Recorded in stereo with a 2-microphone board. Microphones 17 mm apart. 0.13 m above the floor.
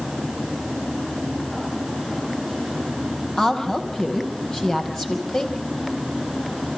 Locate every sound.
3.4 s a woman speaking: 30° left (ahead or behind), 5 m